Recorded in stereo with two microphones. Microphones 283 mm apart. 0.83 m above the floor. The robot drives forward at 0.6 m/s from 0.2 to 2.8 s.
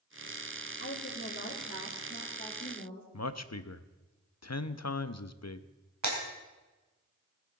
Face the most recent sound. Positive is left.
turn(degrees=-80)